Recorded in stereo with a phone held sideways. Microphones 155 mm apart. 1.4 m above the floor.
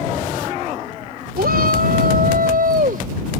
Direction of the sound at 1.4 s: 80° right.